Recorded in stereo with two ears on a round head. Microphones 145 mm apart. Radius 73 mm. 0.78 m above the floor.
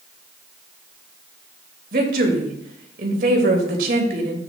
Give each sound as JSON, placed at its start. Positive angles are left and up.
{"t": 1.9, "sound": "a woman speaking", "side_deg": -60, "distance_m": 3.0}